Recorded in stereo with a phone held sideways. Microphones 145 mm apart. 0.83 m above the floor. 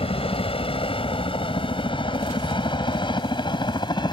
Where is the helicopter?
40° left (ahead or behind); by 4.1 s 30° left (ahead or behind).